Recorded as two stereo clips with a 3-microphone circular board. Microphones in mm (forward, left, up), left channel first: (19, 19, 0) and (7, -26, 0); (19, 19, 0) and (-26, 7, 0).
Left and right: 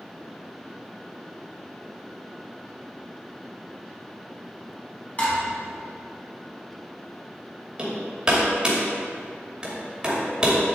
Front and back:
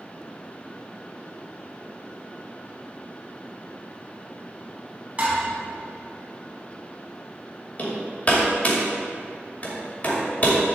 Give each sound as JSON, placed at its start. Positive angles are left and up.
{"t": 5.2, "sound": "dishes clattering", "azimuth_deg": 135, "distance_m": 2.5}
{"t": 7.8, "sound": "hammering", "azimuth_deg": -35, "distance_m": 2.5}